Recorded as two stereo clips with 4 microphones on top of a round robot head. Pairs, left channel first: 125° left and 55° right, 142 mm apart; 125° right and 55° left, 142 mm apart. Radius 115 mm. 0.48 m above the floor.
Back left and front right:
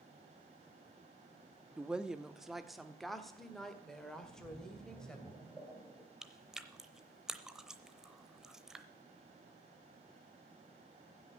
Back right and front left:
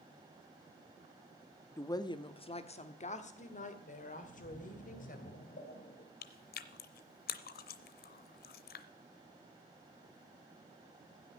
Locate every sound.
1.8 s a woman speaking: 120° right, 0.9 m; by 5.2 s 150° right, 3 m
4.2 s a splash: 130° right, 3.5 m
6.2 s chewing: 140° right, 0.7 m